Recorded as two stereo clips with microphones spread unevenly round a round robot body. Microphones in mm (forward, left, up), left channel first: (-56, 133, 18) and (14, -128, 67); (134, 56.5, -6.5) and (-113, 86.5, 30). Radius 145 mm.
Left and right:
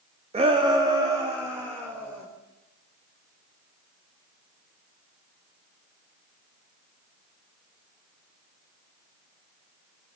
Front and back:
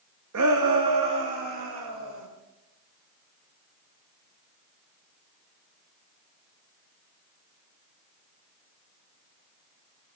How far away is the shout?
About 0.8 m.